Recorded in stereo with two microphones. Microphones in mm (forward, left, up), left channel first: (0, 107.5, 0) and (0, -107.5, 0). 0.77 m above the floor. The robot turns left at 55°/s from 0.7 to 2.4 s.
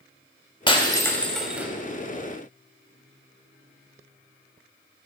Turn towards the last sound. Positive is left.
turn(degrees=-55)